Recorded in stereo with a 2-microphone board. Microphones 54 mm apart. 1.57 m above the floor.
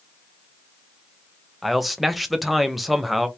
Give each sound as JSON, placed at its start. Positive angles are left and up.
{"t": 1.6, "sound": "a man speaking", "side_deg": 0, "distance_m": 0.7}